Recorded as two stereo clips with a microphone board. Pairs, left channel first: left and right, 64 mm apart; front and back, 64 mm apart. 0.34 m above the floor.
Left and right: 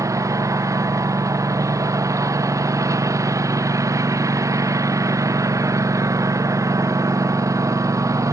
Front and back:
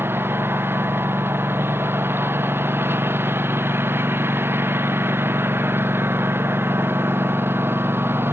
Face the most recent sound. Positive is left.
turn(degrees=-125)